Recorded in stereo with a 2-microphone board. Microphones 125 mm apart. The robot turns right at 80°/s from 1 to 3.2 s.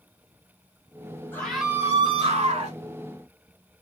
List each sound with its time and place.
1.3 s a scream: 165° left, 2 m; by 2.8 s 80° right, 2 m